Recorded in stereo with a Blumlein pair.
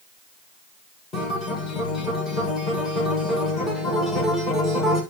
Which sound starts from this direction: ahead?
A guitar, at 1.1 s.